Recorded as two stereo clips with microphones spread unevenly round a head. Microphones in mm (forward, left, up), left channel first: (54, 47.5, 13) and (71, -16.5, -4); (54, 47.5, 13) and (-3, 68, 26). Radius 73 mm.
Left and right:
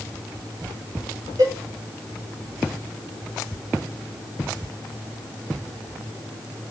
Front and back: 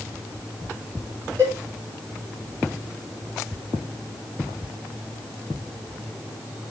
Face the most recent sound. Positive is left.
turn(degrees=-130)